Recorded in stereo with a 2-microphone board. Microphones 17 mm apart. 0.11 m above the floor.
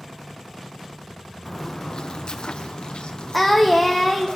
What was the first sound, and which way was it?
Footsteps, 20° left (ahead or behind).